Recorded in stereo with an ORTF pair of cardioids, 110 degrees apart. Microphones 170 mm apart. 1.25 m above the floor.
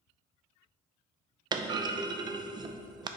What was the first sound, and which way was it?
A clunk, 25° right.